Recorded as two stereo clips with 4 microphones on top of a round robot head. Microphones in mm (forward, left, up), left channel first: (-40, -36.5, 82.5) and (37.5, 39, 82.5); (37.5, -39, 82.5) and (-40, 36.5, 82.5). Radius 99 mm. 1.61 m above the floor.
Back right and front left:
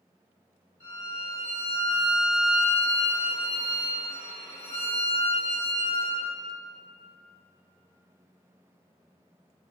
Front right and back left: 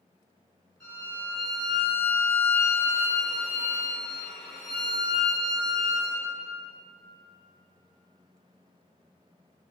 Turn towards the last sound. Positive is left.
turn(degrees=30)